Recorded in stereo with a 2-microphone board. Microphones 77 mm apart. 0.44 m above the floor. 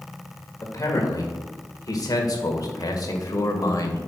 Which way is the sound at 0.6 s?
40° left (ahead or behind).